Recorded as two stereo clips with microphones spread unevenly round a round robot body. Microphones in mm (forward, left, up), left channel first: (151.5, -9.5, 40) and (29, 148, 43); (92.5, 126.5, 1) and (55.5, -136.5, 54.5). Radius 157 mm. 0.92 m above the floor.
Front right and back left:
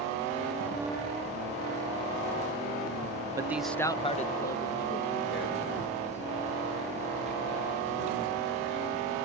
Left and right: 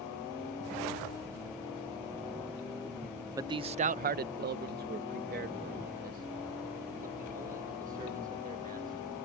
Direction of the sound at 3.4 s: 175° left.